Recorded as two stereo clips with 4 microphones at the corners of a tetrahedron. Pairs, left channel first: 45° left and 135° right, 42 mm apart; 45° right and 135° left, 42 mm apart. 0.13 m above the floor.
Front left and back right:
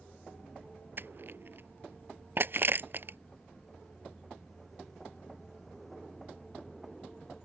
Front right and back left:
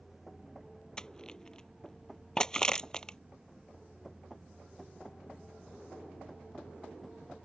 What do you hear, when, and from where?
1.0 s crushing: 115° right